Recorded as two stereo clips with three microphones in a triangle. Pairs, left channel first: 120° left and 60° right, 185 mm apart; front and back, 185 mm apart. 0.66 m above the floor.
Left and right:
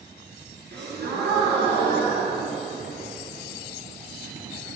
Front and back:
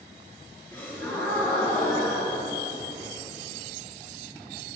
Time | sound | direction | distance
0.7 | a gasp | 80° right | 2.5 m